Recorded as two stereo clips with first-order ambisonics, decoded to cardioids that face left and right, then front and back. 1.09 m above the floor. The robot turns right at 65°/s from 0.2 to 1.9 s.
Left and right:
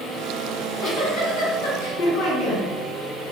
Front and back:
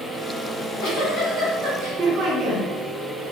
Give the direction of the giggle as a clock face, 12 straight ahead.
11 o'clock.